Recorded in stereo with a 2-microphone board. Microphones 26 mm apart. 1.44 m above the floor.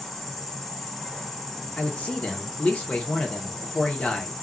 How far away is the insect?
About 1.7 m.